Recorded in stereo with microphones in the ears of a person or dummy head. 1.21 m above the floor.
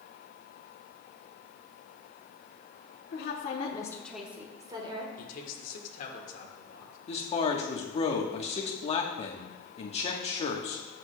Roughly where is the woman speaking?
Left.